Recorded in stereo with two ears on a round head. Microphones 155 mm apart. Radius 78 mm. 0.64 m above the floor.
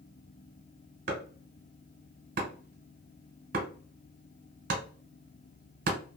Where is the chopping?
50° right (ahead or behind), 1.1 m.